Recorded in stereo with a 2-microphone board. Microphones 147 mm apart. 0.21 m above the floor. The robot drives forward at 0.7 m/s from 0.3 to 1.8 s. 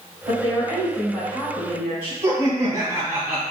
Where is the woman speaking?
20° right (ahead or behind), 1.7 m; by 2.1 s 15° right (ahead or behind), 2 m.